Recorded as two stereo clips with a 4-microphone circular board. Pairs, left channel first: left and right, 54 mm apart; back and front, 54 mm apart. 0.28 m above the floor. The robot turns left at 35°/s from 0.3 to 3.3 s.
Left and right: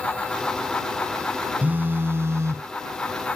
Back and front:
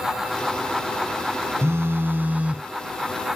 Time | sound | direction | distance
1.6 | a phone buzzing | 35° right | ?